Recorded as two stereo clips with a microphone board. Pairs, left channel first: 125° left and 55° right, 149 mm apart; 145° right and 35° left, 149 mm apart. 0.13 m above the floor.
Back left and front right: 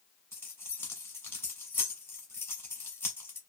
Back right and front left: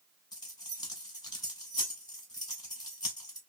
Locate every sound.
0.3 s keys jangling: 175° right, 0.9 m